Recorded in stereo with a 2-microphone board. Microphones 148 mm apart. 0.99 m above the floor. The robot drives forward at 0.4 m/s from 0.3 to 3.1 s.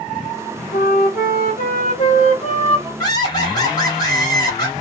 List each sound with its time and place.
0.7 s a flute: 85° left, 0.7 m; by 2.9 s 40° left (ahead or behind), 1.1 m
3.0 s laughter: 25° left (ahead or behind), 1.5 m